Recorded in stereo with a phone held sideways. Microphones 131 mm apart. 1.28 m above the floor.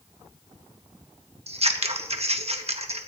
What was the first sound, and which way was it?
Scissors, 50° right (ahead or behind).